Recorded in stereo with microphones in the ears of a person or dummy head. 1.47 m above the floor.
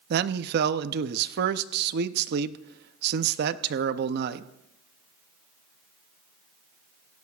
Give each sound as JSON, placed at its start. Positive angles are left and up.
{"t": 0.1, "sound": "a man speaking", "side_deg": -60, "distance_m": 0.6}